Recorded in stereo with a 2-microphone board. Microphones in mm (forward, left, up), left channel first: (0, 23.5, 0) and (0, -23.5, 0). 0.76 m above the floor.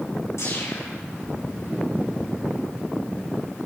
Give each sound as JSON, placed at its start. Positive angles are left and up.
{"t": 0.4, "sound": "a whoosh", "side_deg": 85, "distance_m": 7.0}